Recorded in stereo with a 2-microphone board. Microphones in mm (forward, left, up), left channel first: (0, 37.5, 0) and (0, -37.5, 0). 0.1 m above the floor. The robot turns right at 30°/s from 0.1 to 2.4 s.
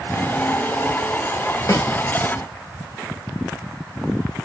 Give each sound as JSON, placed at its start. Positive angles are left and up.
{"t": 1.7, "sound": "a snare drum", "side_deg": 50, "distance_m": 1.0}